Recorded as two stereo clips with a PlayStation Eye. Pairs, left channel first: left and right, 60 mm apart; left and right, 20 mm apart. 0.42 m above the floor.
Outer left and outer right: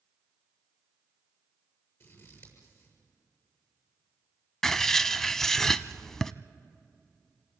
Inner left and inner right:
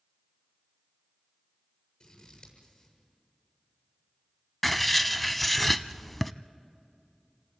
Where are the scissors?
40° left (ahead or behind), 7 m.